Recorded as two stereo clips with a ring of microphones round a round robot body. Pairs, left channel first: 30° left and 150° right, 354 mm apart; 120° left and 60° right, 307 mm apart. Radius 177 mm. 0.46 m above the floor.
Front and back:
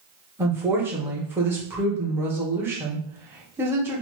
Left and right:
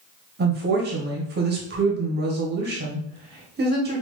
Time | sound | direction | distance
0.4 | a woman speaking | 75° right | 1.0 m